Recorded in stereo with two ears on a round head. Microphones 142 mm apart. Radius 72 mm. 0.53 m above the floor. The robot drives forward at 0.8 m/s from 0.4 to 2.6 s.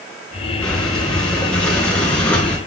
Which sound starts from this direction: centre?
Breathing, at 0.6 s.